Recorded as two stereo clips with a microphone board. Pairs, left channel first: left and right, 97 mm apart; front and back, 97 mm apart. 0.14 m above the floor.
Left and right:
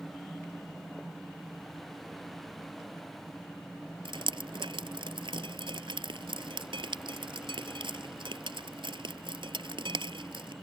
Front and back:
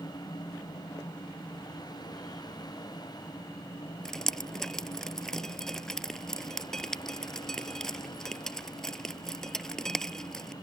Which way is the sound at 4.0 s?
85° right.